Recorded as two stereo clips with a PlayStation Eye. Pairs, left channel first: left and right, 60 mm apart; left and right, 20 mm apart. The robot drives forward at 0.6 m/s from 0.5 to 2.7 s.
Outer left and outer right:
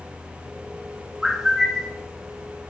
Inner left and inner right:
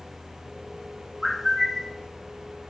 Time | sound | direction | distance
1.2 | a bird | 10° right (ahead or behind) | 1.7 m